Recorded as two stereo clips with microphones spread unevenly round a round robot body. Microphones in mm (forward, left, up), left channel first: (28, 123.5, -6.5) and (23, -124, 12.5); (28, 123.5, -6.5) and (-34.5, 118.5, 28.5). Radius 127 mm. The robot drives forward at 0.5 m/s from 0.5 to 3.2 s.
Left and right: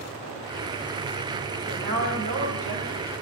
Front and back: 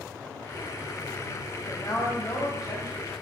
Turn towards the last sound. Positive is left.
turn(degrees=-90)